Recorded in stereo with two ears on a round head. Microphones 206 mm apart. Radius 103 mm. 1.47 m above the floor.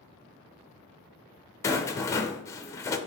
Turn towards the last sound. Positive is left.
turn(degrees=15)  # may be behind; listen again after turning